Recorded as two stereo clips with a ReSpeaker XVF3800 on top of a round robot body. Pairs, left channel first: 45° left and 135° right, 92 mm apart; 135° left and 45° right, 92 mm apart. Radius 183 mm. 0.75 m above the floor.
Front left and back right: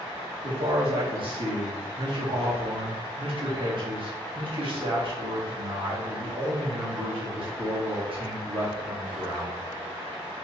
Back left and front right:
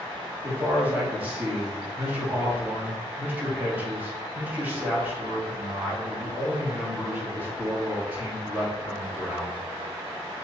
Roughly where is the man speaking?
Behind right.